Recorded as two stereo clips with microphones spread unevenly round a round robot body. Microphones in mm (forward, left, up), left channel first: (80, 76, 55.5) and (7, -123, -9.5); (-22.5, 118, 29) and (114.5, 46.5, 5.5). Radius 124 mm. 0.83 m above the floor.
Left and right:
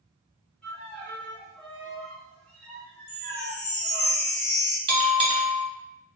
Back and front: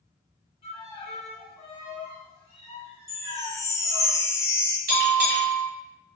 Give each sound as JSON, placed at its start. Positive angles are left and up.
{"t": 0.6, "sound": "a violin", "azimuth_deg": -175, "distance_m": 0.9}
{"t": 3.1, "sound": "a chime", "azimuth_deg": 80, "distance_m": 0.6}
{"t": 4.9, "sound": "a bell", "azimuth_deg": -35, "distance_m": 0.8}